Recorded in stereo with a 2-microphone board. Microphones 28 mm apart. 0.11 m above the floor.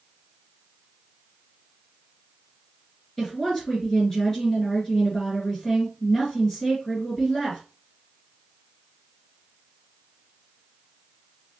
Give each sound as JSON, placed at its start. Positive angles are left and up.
{"t": 3.2, "sound": "a woman speaking", "side_deg": 20, "distance_m": 2.0}